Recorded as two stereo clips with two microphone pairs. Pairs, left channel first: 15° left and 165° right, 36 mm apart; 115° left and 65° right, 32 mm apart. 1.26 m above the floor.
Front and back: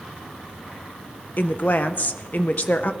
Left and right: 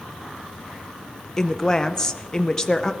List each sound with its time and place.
1.4 s a woman speaking: 40° left, 1.0 m